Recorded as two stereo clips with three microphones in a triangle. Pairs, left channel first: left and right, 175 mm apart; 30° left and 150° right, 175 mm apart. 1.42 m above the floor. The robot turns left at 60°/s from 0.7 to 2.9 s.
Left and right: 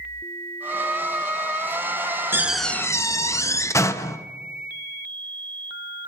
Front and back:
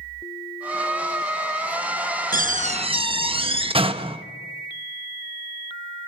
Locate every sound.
2.3 s a door slam: 165° right, 0.9 m; by 4.2 s 160° left, 0.9 m